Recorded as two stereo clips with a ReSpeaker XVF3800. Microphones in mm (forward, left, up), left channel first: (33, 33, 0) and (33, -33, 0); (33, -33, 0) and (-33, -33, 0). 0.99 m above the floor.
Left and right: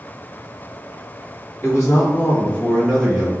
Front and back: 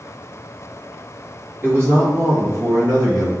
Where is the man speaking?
125° left, 1.2 m; by 3.3 s 170° right, 0.9 m.